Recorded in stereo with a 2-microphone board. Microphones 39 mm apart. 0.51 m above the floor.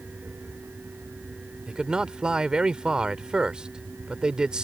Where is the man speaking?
20° right (ahead or behind).